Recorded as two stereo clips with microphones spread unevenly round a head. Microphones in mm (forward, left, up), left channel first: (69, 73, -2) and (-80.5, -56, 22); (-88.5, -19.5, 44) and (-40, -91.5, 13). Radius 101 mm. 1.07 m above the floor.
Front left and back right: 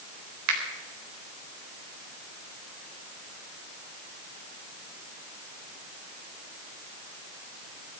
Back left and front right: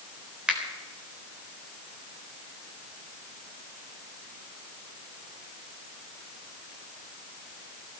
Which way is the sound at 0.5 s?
135° right.